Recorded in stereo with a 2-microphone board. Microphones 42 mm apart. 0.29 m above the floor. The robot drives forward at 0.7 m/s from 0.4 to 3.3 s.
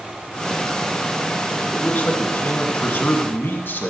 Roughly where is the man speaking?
Left.